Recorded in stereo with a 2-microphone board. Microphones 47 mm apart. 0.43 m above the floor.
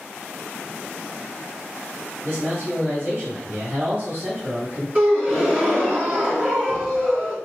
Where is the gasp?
25° right (ahead or behind), 3 m.